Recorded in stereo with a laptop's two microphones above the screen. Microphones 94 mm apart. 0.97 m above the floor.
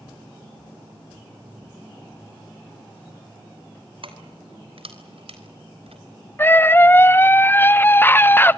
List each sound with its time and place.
4.0 s keys jangling: 65° right (ahead or behind), 3 m; by 6.0 s 85° right, 4 m
6.4 s a scream: 20° left (ahead or behind), 0.7 m